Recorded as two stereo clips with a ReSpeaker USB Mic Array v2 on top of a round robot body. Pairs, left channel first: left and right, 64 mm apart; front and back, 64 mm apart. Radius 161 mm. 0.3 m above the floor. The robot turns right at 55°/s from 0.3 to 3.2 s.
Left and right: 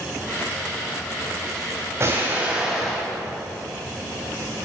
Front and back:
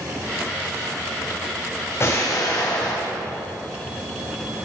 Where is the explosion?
45° right, 3 m; by 3.1 s 15° left, 3 m.